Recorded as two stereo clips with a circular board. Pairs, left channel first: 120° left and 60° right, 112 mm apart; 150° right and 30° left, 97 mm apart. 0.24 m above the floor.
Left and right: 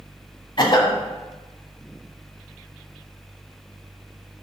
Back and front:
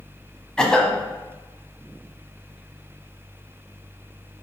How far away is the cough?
About 1.3 m.